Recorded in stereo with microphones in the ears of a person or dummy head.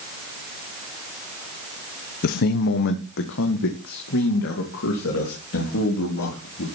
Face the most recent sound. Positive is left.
turn(degrees=70)  # may be behind; listen again after turning